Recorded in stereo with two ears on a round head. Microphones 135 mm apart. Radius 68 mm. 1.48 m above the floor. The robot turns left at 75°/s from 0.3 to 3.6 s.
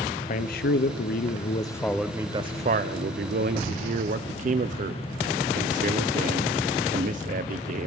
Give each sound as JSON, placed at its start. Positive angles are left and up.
{"t": 0.3, "sound": "a man speaking", "azimuth_deg": 125, "distance_m": 0.6}